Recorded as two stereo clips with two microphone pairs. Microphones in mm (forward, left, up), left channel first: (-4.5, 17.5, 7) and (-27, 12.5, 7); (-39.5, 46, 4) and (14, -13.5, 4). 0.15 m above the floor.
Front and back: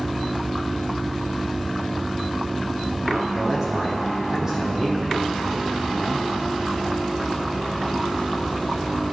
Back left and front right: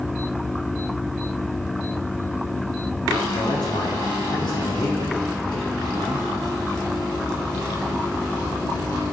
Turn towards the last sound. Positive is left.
turn(degrees=125)